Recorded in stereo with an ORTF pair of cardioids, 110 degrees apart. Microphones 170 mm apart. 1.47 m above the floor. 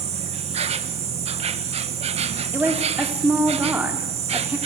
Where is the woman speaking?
10° right, 3.5 m.